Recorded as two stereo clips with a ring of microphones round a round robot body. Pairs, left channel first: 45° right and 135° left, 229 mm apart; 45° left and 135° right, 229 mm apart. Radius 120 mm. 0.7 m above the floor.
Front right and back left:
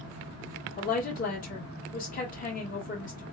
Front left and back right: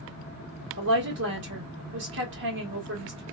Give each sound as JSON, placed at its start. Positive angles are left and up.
{"t": 0.8, "sound": "a woman speaking", "azimuth_deg": -100, "distance_m": 1.6}